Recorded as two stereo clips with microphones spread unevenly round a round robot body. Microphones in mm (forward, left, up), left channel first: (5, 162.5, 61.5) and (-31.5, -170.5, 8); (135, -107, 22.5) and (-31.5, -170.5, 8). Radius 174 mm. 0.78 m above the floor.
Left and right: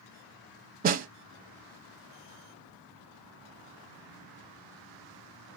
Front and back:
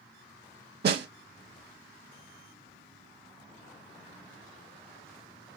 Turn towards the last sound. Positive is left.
turn(degrees=-155)